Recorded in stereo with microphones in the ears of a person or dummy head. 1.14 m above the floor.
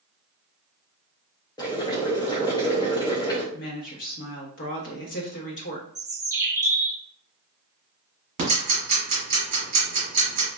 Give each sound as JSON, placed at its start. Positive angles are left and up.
{"t": 1.6, "sound": "boiling", "side_deg": 20, "distance_m": 0.8}
{"t": 3.5, "sound": "a woman speaking", "side_deg": 55, "distance_m": 0.9}
{"t": 6.0, "sound": "a bird", "side_deg": -15, "distance_m": 0.5}
{"t": 8.4, "sound": "ticking", "side_deg": -45, "distance_m": 1.4}